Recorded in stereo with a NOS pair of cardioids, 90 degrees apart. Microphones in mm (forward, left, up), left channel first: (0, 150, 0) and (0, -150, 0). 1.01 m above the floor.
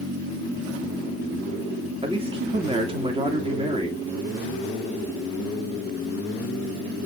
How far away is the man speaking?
About 2.5 m.